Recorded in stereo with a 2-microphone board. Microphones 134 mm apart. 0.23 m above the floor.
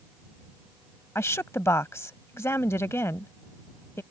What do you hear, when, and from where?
1.1 s a woman speaking: 20° left (ahead or behind)